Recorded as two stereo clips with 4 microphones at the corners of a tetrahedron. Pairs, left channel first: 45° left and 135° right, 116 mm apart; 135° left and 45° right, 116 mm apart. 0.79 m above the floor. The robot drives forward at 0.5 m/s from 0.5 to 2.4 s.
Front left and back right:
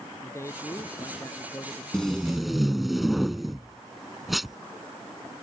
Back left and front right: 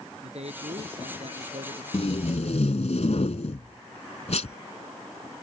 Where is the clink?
No clink in this recording.